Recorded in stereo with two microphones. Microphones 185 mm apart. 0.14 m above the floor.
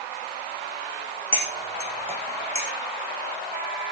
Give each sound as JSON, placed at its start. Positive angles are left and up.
{"t": 1.3, "sound": "cutlery clinking", "side_deg": -30, "distance_m": 4.5}